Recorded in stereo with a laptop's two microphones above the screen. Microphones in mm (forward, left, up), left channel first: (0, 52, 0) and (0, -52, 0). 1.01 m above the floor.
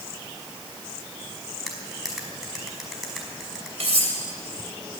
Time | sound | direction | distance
1.7 | cutlery clinking | 5° right (ahead or behind) | 5 m
3.8 | cutlery clinking | 85° right | 3 m